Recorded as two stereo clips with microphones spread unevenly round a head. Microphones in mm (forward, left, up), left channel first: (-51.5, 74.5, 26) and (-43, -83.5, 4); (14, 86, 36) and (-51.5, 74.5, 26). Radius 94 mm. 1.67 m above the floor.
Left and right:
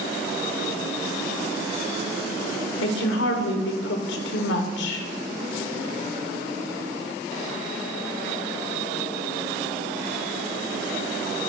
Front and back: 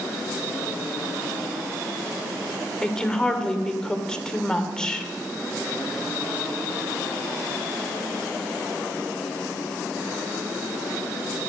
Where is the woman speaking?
90° left, 1.0 m.